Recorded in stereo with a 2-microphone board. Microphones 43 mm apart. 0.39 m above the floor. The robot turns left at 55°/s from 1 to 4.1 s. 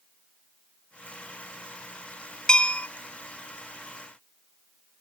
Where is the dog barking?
No dog barking in this recording.